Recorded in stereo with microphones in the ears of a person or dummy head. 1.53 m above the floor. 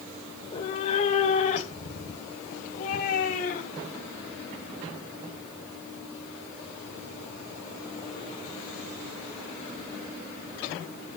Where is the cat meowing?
30° left (ahead or behind), 1.9 m; by 4.0 s 50° left (ahead or behind), 4 m.